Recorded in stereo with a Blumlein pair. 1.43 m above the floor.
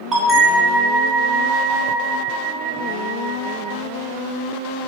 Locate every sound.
0.1 s a bell: 15° right, 0.7 m